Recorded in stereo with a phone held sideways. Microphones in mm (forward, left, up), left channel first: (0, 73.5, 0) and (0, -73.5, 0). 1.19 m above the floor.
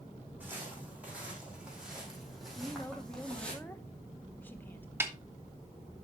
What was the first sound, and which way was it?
Footsteps, 15° right (ahead or behind).